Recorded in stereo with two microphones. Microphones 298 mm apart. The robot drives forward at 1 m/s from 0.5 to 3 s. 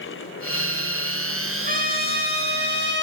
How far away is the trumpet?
About 4 m.